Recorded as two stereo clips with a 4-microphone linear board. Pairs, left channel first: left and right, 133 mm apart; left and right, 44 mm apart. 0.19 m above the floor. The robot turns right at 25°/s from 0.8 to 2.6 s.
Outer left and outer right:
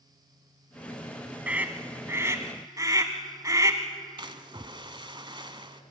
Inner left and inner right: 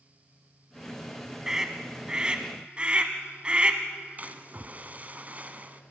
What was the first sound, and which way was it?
A scream, 10° right (ahead or behind).